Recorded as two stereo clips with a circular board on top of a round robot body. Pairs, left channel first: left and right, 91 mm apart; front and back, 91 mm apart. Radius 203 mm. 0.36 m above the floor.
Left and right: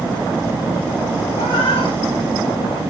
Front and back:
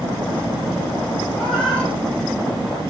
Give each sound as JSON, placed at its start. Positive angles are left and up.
{"t": 1.3, "sound": "a cat meowing", "azimuth_deg": 80, "distance_m": 3.5}